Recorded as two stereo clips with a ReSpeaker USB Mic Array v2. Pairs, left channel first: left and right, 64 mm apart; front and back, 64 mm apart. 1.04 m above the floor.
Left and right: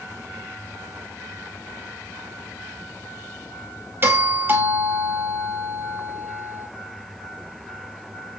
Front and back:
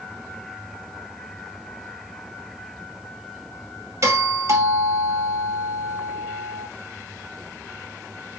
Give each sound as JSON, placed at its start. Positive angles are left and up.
{"t": 4.0, "sound": "a doorbell", "azimuth_deg": -140, "distance_m": 3.0}